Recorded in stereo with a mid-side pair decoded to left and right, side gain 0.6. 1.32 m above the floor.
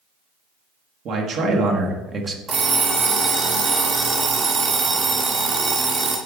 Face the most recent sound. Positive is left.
turn(degrees=-45)